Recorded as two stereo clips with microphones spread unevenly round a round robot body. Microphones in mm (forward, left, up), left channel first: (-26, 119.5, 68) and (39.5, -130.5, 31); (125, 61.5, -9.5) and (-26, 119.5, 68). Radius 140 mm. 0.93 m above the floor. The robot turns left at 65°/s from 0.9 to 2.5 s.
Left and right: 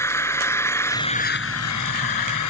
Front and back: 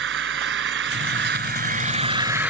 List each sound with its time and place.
0.0 s an engine running: 175° right; by 2.5 s 80° left